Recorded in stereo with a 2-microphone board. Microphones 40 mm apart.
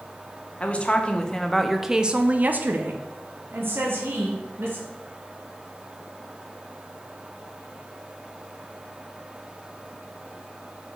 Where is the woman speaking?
35° left (ahead or behind), 0.9 m; by 4.8 s 70° right (ahead or behind), 1.6 m.